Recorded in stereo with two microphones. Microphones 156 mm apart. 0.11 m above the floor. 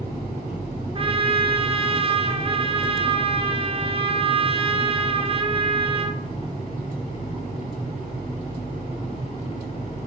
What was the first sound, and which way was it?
A trumpet, 35° right (ahead or behind).